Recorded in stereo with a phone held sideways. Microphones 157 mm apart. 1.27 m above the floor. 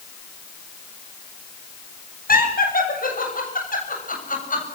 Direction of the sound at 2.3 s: 70° left (ahead or behind).